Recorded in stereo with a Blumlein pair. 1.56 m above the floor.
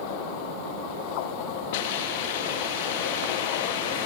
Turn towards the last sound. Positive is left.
turn(degrees=50)